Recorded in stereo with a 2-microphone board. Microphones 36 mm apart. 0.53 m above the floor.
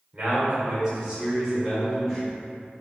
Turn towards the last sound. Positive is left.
turn(degrees=0)  # may be behind; listen again after turning